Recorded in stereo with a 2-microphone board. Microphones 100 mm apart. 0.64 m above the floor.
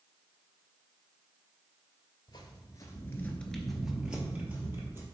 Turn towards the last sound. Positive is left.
turn(degrees=-25)  # may be behind; listen again after turning